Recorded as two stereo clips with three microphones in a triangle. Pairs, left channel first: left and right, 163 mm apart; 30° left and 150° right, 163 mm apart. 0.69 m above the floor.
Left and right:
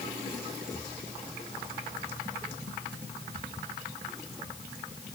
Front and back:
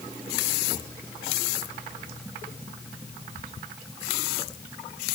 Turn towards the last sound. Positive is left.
No sound to turn to.